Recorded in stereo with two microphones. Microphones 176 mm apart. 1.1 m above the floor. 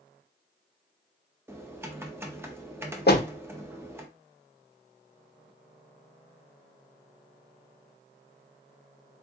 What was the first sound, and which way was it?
Typing on a keyboard, 15° right (ahead or behind).